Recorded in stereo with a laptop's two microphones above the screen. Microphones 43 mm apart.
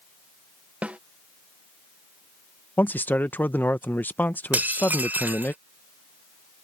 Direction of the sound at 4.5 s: 50° right (ahead or behind).